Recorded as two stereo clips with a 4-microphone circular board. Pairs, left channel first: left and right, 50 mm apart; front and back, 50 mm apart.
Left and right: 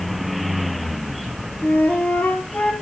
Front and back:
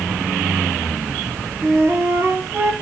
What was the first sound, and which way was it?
A flute, 150° left.